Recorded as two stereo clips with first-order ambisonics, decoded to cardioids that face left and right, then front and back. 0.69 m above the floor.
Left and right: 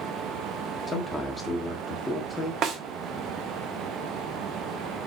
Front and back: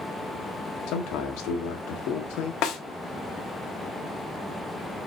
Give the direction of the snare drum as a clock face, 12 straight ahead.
1 o'clock.